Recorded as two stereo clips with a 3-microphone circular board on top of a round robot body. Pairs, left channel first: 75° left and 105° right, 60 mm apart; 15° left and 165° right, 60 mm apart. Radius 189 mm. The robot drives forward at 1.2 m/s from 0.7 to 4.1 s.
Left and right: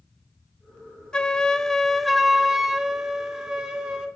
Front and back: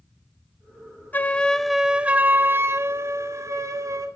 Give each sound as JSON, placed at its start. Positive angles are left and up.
{"t": 1.1, "sound": "a flute", "azimuth_deg": 15, "distance_m": 1.5}